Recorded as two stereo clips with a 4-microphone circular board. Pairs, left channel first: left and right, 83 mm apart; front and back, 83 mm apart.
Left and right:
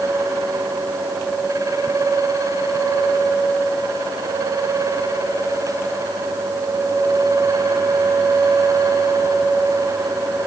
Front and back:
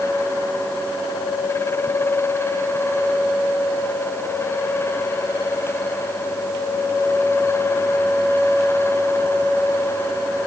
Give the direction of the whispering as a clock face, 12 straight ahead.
No whispering in this recording.